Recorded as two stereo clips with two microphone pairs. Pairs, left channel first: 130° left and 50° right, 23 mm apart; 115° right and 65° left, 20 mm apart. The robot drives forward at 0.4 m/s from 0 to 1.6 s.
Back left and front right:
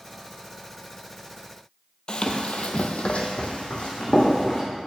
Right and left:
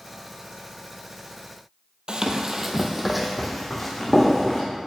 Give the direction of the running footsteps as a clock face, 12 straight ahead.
9 o'clock.